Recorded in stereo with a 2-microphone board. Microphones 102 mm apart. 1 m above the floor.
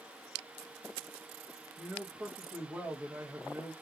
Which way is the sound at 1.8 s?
15° right (ahead or behind).